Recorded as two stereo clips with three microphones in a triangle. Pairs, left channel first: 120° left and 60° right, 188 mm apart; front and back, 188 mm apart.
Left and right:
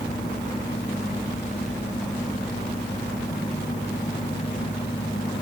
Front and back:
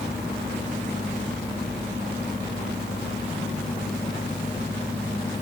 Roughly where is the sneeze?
I don't hear a sneeze.